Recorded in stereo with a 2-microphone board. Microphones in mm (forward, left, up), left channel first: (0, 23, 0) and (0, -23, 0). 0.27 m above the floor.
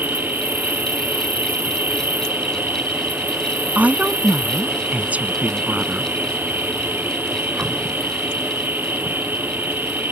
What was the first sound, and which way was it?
An insect, 45° right (ahead or behind).